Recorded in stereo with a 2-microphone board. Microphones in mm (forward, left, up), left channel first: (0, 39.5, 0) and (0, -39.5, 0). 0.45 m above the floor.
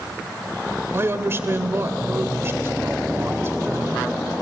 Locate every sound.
0.9 s a man speaking: 30° right (ahead or behind), 1.7 m